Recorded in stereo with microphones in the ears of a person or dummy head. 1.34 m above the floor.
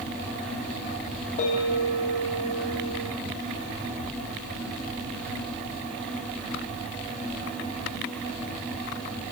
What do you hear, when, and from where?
1.4 s a bell: 45° left (ahead or behind), 1.6 m